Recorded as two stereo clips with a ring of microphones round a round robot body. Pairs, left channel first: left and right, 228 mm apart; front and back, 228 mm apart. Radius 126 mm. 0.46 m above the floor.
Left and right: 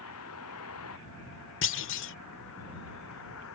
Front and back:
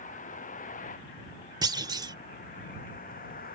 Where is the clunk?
110° left.